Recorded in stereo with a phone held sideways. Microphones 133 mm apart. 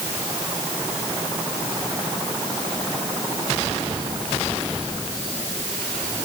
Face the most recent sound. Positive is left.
No sound to turn to.